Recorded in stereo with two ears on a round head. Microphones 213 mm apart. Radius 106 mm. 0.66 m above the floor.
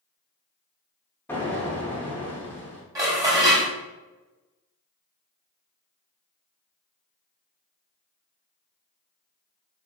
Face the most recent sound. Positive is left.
turn(degrees=-15)  # may be behind; listen again after turning